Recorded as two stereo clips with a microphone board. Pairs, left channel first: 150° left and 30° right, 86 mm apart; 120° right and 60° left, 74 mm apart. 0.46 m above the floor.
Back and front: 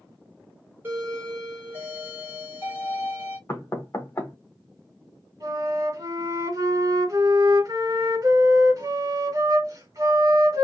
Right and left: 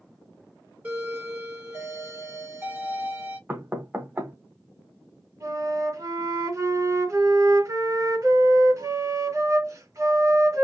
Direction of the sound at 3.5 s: 105° left.